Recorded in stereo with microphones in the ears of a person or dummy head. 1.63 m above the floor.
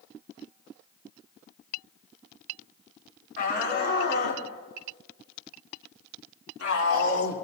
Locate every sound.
3.4 s a shout: 55° left (ahead or behind), 4.5 m; by 7.3 s 85° left, 4.5 m